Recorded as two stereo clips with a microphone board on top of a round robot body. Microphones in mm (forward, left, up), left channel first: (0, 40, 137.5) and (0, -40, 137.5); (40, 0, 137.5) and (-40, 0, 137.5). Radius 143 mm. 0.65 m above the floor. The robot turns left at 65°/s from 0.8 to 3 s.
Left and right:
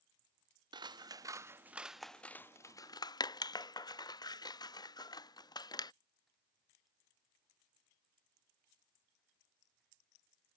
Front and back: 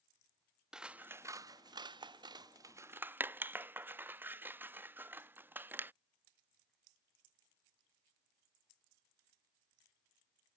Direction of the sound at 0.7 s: 100° right.